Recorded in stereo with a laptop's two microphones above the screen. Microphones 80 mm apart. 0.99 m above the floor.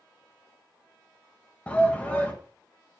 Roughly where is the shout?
Centre.